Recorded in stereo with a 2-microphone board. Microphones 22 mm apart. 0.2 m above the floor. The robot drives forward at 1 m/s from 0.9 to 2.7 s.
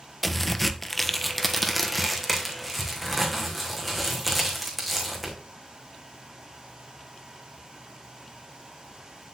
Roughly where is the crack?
Centre.